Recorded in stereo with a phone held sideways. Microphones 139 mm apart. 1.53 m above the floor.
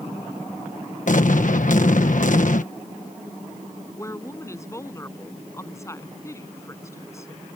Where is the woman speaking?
20° left (ahead or behind).